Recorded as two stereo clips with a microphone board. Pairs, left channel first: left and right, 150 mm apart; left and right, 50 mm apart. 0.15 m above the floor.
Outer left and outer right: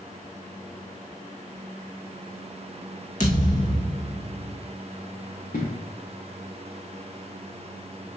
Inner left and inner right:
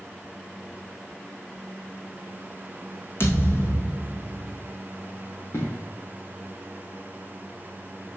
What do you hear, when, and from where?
3.2 s a thud: 55° left (ahead or behind), 2.5 m
5.5 s an explosion: 65° left (ahead or behind), 3 m